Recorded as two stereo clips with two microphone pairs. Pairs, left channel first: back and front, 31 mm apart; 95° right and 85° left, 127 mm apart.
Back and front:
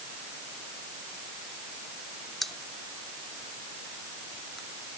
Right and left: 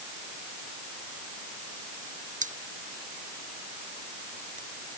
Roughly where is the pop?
Left.